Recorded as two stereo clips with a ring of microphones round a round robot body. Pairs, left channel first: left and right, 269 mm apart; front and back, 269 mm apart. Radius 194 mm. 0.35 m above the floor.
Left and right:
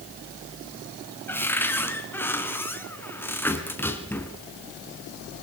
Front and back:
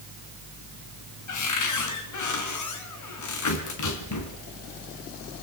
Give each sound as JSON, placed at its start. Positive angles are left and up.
{"t": 1.3, "sound": "a cupboard door", "azimuth_deg": 5, "distance_m": 3.5}